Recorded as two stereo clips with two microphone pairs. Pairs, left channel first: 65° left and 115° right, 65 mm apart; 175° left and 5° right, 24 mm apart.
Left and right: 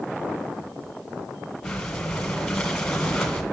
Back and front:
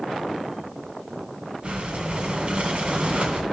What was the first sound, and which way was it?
Breathing, 20° right.